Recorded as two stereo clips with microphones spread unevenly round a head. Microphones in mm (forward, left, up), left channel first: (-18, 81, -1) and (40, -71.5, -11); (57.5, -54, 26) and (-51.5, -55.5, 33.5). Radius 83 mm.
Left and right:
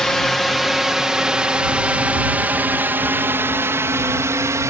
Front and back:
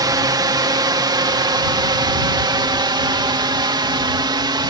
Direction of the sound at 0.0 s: 160° right.